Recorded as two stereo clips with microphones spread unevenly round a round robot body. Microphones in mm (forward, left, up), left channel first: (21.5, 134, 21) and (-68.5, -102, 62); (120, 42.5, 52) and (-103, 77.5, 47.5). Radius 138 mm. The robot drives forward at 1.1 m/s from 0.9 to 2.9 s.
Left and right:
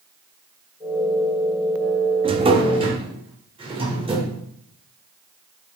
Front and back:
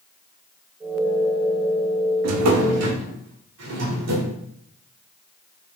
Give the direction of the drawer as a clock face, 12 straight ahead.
6 o'clock.